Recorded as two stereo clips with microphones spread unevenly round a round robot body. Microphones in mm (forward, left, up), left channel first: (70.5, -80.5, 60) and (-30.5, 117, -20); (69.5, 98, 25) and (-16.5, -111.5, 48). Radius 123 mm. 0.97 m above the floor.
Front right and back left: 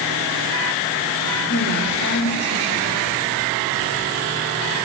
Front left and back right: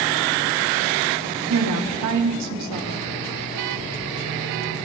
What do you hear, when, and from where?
1.5 s a woman speaking: 115° right, 2.5 m